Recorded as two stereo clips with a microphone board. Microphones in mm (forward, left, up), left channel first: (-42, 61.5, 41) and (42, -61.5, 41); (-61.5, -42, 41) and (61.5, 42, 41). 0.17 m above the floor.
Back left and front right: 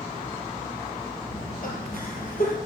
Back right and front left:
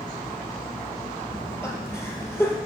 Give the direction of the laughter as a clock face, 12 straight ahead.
7 o'clock.